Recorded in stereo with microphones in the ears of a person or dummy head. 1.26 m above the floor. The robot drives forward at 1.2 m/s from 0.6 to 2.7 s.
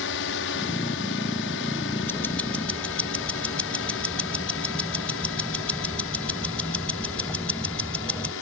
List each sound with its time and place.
0.0 s a drone: 65° left (ahead or behind); by 8.4 s 70° left (ahead or behind)
2.1 s ticking: 10° left (ahead or behind)